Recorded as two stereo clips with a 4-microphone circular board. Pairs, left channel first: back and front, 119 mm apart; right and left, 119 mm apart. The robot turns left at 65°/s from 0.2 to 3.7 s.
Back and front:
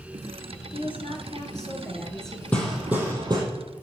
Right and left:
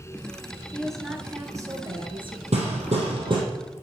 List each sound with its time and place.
0.7 s a woman speaking: 165° right, 2 m; by 2.4 s 85° left, 2 m
2.5 s hammering: 105° left, 3 m; by 3.4 s 45° left, 3 m